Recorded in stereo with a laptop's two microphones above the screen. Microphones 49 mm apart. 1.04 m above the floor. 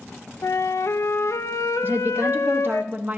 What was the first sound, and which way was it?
A flute, 85° left.